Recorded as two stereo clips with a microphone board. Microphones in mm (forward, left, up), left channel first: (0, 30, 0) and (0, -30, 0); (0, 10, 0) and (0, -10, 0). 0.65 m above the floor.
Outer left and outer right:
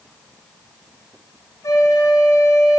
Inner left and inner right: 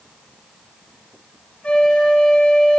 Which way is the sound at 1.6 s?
70° left (ahead or behind).